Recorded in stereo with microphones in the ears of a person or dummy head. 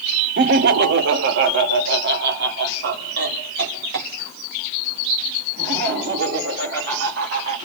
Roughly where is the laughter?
Right.